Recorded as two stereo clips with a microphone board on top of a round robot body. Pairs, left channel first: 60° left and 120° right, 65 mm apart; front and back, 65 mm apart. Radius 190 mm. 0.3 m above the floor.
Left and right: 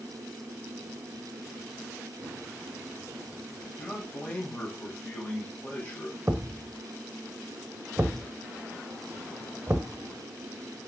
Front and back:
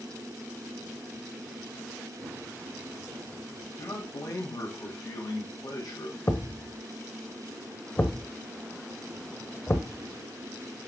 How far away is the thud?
About 1.1 m.